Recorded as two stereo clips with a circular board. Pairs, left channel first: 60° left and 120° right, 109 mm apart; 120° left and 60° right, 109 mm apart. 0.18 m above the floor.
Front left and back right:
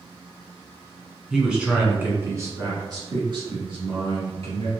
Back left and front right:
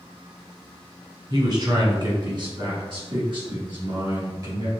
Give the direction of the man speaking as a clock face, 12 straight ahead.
1 o'clock.